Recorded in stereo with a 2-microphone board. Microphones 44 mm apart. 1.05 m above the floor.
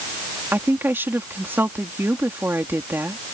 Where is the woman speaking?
60° right (ahead or behind).